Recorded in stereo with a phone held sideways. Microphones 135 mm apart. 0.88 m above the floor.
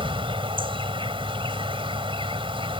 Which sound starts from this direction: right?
An insect, at 0.0 s.